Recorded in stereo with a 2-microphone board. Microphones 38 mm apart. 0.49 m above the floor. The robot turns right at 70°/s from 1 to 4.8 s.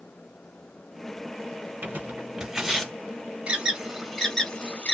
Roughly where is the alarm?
Right.